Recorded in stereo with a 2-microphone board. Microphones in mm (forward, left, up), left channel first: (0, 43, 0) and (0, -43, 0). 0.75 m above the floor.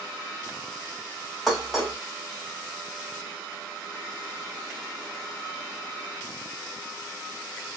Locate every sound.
1.5 s dishes clattering: centre (ahead or behind), 2 m